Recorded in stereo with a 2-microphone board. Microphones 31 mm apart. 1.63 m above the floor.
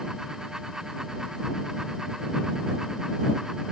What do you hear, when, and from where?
Only background noise.